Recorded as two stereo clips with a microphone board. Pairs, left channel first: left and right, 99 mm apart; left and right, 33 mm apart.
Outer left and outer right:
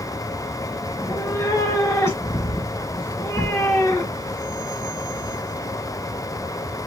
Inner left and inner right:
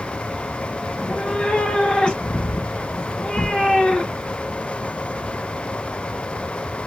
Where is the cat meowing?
30° left (ahead or behind), 1.6 m.